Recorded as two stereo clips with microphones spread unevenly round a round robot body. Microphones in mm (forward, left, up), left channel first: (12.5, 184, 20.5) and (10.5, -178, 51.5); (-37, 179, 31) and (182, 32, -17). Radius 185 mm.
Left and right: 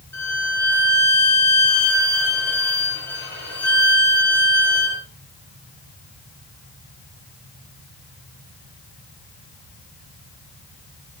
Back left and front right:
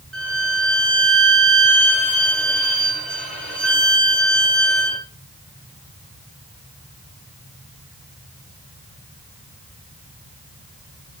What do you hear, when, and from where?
0.1 s a violin: 5° left, 7.5 m